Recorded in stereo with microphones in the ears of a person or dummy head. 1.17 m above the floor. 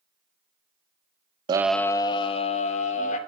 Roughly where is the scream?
Right.